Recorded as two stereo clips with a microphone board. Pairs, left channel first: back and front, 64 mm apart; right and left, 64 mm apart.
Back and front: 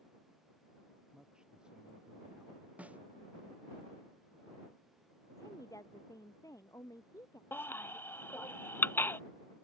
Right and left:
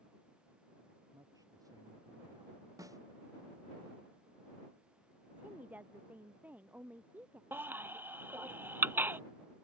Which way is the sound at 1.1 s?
75° left.